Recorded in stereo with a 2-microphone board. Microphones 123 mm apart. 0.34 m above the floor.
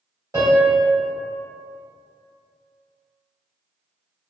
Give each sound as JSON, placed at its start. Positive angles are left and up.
{"t": 0.3, "sound": "a piano", "side_deg": -30, "distance_m": 1.9}